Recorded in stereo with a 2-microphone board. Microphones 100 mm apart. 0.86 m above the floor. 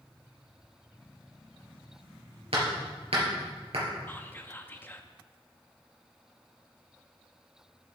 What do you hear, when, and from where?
2.5 s hammering: 80° right, 4.5 m
4.1 s whispering: 20° left (ahead or behind), 0.9 m